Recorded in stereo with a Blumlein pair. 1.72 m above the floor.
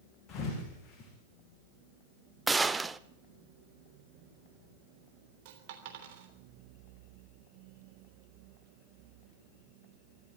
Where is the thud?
20° left, 7 m.